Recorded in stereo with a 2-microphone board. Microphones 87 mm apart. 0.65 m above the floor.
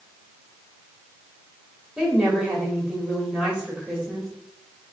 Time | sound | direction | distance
2.0 | a woman speaking | 15° right (ahead or behind) | 1.5 m